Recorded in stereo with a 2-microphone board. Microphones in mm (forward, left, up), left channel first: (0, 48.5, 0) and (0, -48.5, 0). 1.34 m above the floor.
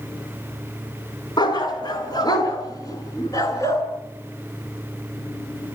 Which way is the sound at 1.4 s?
50° left (ahead or behind).